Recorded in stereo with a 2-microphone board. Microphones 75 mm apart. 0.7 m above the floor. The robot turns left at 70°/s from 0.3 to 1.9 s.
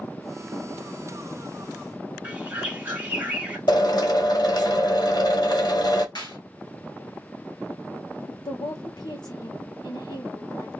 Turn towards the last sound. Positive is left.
turn(degrees=75)  # may be behind; listen again after turning